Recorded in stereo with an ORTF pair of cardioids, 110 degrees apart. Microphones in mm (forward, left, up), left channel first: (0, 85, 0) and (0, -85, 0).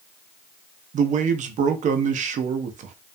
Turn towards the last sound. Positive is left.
turn(degrees=-45)